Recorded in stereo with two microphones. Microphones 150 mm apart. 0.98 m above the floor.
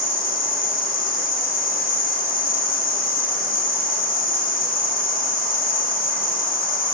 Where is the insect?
70° left (ahead or behind), 1.3 m.